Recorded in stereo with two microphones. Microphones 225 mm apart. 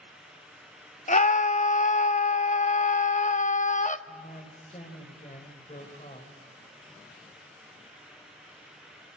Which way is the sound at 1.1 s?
35° left (ahead or behind).